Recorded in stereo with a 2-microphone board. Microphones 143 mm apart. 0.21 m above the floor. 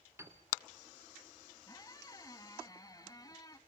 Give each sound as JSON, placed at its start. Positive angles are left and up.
{"t": 0.2, "sound": "a piano", "side_deg": -20, "distance_m": 2.0}
{"t": 1.7, "sound": "a squeak", "side_deg": 25, "distance_m": 1.2}